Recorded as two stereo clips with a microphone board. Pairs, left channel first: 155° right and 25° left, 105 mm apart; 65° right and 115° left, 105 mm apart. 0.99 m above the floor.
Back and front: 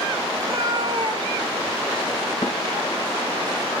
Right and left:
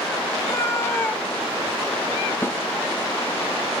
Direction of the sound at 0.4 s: 25° right.